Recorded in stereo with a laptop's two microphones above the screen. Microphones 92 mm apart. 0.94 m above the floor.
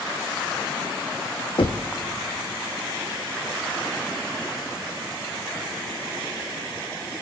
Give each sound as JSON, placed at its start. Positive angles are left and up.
{"t": 1.6, "sound": "knocking", "side_deg": 70, "distance_m": 0.8}